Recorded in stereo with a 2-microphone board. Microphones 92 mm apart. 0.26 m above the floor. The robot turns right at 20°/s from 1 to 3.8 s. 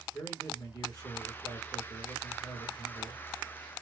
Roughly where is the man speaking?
Ahead left.